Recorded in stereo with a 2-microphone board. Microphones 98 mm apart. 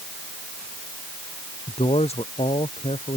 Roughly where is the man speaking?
Left.